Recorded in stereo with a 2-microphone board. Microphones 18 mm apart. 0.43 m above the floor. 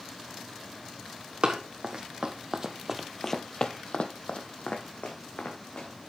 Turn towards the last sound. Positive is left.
turn(degrees=85)